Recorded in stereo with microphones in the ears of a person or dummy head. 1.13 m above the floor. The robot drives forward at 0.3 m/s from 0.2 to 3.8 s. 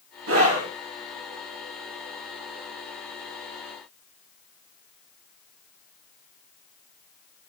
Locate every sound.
0.3 s a scream: 70° right (ahead or behind), 1.3 m